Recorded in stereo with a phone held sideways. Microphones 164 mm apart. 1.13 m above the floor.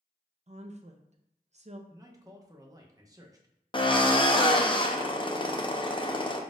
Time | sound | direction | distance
0.5 | a woman speaking | 45° right (ahead or behind) | 0.6 m
1.9 | a man speaking | 20° right (ahead or behind) | 0.7 m
3.7 | a drill | 30° left (ahead or behind) | 0.6 m